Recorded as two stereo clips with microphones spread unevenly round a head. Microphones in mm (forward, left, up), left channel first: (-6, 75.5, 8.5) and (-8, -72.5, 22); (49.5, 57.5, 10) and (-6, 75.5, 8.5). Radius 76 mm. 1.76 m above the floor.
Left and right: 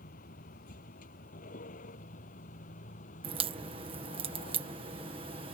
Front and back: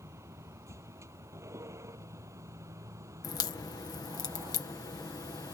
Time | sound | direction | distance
0.0 | a vehicle | 125° left | ?
3.2 | a crack | 35° right | ?